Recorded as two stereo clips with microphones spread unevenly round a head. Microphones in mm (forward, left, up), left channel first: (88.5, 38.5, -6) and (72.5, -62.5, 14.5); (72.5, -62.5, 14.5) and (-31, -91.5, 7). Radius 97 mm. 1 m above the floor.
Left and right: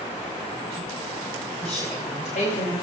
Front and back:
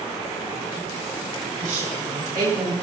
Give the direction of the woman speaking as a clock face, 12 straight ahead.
7 o'clock.